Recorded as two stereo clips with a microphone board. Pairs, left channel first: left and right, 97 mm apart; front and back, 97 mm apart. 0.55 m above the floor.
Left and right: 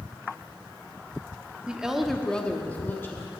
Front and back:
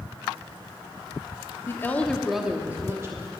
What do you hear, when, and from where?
1.7 s a woman speaking: 25° right, 0.9 m; by 3.3 s 145° left, 1.1 m